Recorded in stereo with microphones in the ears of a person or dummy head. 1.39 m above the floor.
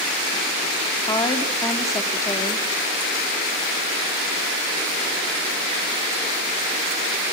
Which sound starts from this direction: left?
A woman speaking, at 1.1 s.